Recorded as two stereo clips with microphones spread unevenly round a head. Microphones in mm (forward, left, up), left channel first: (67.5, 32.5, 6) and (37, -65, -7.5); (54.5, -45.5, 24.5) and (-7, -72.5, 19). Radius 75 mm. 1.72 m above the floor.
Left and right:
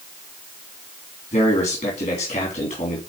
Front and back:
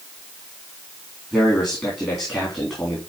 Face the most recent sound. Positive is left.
turn(degrees=105)